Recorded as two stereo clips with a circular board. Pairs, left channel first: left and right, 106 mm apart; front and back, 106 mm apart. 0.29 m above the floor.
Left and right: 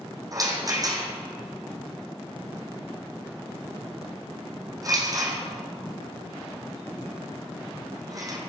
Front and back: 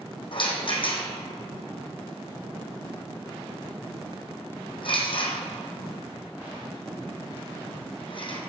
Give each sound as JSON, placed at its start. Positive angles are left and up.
{"t": 0.3, "sound": "a rattle", "azimuth_deg": -35, "distance_m": 1.8}